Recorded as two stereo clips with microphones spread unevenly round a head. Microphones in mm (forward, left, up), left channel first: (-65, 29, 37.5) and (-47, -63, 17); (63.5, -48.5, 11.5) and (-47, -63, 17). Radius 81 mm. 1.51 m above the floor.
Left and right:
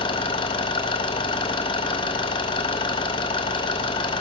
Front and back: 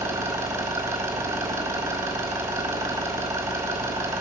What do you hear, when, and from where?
0.0 s an engine running: 115° left, 2.5 m